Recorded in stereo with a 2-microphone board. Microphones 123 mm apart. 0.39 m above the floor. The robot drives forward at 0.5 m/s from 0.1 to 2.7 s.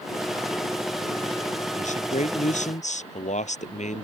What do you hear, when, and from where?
1.7 s a man speaking: 75° left (ahead or behind)